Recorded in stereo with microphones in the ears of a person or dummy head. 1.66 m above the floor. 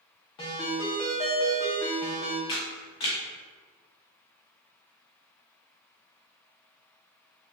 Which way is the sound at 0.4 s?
20° left (ahead or behind).